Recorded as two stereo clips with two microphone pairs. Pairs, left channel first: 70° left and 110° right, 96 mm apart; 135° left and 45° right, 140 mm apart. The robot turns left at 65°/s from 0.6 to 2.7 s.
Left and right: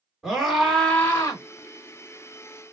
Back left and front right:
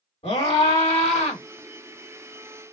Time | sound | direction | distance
0.2 | a scream | 160° left | 2.5 m